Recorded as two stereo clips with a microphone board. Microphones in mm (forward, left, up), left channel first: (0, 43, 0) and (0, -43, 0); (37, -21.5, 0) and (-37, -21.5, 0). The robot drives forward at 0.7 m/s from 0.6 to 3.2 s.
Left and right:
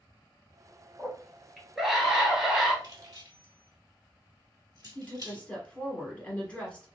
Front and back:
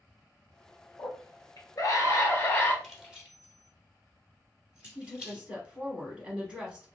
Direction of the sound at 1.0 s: 5° right.